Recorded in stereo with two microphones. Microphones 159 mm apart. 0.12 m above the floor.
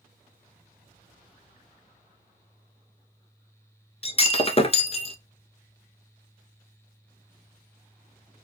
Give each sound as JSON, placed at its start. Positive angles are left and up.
{"t": 4.0, "sound": "breaking glass", "side_deg": 40, "distance_m": 0.6}